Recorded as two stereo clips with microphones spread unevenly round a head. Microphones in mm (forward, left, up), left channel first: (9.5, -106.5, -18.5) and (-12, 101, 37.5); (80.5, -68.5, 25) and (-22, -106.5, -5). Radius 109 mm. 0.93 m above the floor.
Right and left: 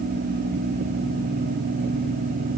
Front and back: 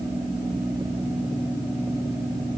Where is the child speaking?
No child speaking in this recording.